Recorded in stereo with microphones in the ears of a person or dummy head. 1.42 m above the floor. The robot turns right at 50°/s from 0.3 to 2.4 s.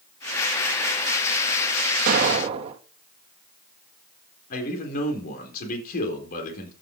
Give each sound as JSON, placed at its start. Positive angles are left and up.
{"t": 2.1, "sound": "an explosion", "side_deg": -50, "distance_m": 2.5}
{"t": 4.5, "sound": "a man speaking", "side_deg": 55, "distance_m": 4.0}